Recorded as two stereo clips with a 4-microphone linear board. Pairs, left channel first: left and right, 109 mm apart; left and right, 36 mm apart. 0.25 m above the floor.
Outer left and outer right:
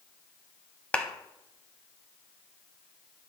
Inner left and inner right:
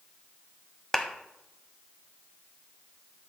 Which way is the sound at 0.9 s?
10° left (ahead or behind).